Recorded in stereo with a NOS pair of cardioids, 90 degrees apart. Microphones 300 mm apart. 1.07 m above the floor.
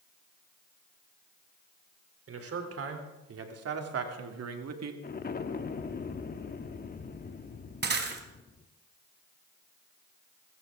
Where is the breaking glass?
35° right, 3 m.